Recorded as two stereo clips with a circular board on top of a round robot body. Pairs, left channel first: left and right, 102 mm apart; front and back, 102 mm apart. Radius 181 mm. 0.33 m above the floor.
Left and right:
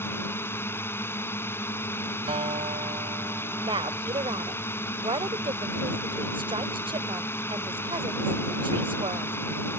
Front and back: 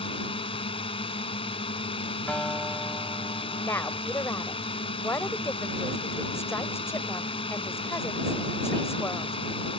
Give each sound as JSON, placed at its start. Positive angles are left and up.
{"t": 0.0, "sound": "a drone", "azimuth_deg": 25}
{"t": 2.3, "sound": "a guitar", "azimuth_deg": -75}
{"t": 3.6, "sound": "a woman speaking", "azimuth_deg": -60}